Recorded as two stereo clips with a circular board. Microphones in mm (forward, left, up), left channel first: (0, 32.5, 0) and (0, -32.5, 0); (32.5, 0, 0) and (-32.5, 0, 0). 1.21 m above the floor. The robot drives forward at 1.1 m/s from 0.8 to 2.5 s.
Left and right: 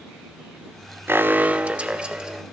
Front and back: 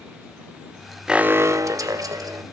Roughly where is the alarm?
Right.